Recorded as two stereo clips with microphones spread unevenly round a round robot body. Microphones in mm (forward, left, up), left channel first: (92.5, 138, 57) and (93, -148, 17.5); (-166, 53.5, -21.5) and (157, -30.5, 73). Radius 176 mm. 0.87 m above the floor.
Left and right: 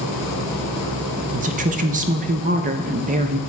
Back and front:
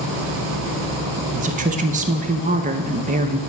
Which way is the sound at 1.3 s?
90° right.